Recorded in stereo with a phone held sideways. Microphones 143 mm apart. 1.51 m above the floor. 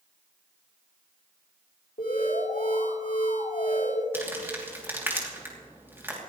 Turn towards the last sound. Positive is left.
turn(degrees=-15)  # may be behind; listen again after turning